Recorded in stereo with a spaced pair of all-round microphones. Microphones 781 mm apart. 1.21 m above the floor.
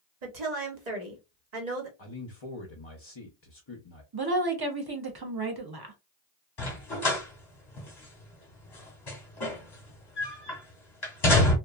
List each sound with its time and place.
0.2 s a woman speaking: 60° right (ahead or behind), 1.1 m
2.0 s a man speaking: 40° left (ahead or behind), 0.6 m
4.1 s a woman speaking: 30° right (ahead or behind), 0.7 m
6.6 s a dog barking: 30° left (ahead or behind), 1.0 m